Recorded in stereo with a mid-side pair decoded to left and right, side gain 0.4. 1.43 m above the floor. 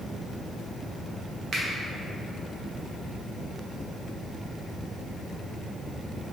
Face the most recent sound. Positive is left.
turn(degrees=-60)